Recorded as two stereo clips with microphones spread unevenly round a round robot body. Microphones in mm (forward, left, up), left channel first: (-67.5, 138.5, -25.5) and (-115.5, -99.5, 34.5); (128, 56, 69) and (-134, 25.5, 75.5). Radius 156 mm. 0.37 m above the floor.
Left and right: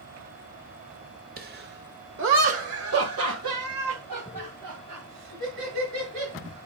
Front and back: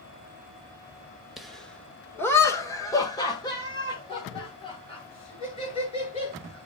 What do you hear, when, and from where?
1.4 s laughter: 80° right, 1.2 m; by 6.7 s 65° right, 4 m